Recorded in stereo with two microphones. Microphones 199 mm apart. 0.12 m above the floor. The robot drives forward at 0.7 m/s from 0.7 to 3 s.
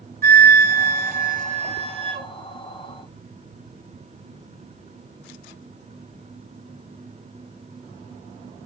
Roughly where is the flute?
Right.